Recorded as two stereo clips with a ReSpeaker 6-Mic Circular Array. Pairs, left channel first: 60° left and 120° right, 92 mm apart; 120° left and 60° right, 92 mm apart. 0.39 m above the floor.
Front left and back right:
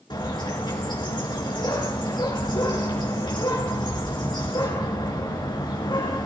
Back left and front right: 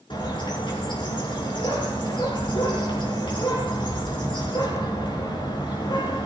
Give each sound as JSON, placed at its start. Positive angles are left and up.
{"t": 0.1, "sound": "a bird", "azimuth_deg": 95, "distance_m": 4.5}